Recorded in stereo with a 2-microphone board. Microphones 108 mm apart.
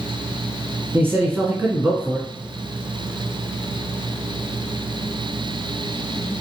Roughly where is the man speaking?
Centre.